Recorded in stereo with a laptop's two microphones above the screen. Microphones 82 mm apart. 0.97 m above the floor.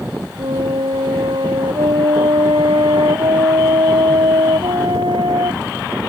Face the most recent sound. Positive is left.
turn(degrees=-80)